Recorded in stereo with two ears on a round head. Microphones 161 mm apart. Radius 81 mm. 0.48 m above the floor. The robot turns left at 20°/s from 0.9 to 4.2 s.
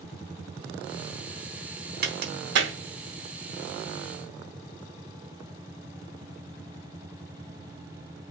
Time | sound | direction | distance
2.0 | a crack | 55° right (ahead or behind) | 3 m